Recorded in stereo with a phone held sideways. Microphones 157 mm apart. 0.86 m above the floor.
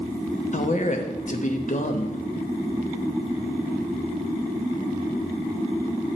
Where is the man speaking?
50° left (ahead or behind), 0.8 m.